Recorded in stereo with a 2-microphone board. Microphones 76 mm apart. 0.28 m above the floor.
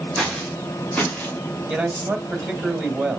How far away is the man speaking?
About 1.6 m.